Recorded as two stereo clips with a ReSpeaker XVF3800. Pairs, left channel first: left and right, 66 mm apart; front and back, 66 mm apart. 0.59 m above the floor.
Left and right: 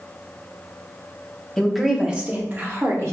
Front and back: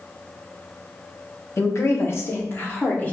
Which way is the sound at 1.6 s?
10° left.